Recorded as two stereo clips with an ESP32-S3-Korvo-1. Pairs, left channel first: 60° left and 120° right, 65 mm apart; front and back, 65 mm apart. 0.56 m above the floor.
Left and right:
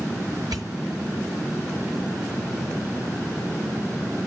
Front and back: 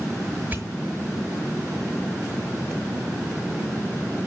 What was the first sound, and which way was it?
A pop, 120° right.